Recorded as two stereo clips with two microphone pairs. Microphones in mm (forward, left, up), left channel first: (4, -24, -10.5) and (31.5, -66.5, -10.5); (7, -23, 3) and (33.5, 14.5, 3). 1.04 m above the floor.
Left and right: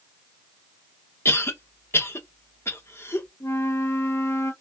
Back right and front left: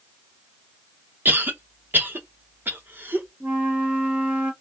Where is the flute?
115° left, 1.7 m.